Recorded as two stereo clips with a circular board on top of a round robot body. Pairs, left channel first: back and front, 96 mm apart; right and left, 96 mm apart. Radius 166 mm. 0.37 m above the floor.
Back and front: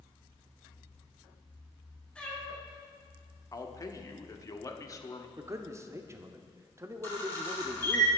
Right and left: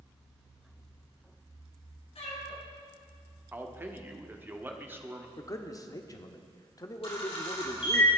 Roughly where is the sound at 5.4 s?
Ahead right.